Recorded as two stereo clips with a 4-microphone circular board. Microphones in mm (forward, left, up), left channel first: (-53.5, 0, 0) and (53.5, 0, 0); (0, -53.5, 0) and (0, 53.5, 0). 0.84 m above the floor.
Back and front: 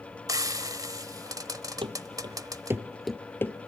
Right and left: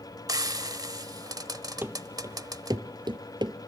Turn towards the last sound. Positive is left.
turn(degrees=125)